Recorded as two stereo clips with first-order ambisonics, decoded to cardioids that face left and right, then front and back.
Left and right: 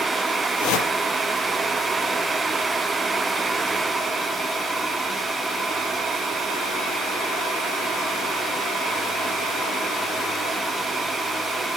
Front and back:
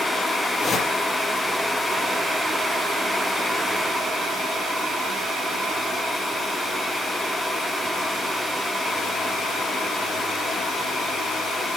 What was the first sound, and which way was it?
A whoosh, 75° left.